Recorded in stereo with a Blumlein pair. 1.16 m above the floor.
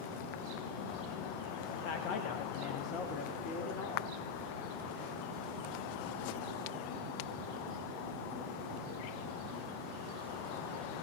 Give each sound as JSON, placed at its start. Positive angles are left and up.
{"t": 1.7, "sound": "a man speaking", "azimuth_deg": 45, "distance_m": 1.3}